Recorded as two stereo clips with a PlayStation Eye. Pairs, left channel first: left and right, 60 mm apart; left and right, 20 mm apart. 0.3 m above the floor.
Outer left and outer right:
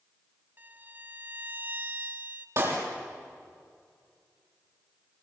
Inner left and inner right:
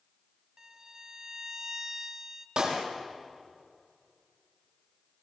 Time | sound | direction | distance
0.6 | a violin | 30° right (ahead or behind) | 0.7 m
2.6 | a clap | 55° right (ahead or behind) | 7 m